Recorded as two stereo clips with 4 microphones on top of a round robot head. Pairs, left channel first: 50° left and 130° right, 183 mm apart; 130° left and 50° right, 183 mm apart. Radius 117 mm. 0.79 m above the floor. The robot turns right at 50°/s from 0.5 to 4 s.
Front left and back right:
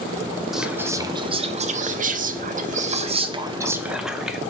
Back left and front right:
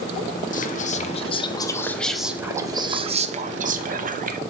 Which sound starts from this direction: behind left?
Whispering, at 0.5 s.